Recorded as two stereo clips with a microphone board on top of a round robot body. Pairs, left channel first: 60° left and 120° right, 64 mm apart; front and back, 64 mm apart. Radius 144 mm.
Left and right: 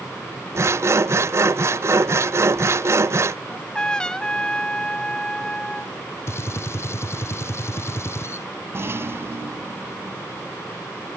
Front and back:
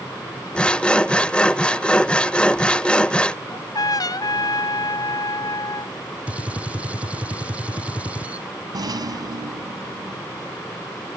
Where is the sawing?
75° right.